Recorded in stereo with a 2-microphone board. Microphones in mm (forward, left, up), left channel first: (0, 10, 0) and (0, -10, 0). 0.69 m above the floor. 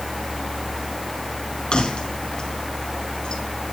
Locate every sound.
1.7 s keys jangling: 45° left (ahead or behind), 3.5 m